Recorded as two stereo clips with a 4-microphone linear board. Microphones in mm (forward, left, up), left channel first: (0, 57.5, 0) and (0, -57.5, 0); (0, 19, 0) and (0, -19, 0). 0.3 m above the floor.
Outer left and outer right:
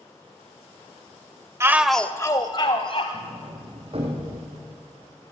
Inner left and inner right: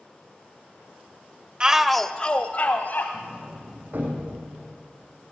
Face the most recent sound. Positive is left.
turn(degrees=-55)  # may be behind; listen again after turning